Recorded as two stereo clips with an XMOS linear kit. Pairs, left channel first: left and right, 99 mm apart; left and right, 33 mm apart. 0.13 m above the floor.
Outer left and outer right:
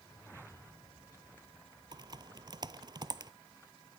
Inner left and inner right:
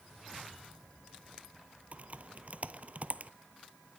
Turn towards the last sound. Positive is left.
turn(degrees=-50)  # may be behind; listen again after turning